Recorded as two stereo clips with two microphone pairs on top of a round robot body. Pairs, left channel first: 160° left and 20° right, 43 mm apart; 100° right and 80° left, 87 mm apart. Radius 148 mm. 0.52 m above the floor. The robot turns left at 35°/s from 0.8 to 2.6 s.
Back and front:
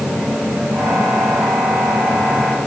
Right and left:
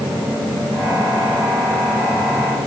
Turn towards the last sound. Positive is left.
No sound to turn to.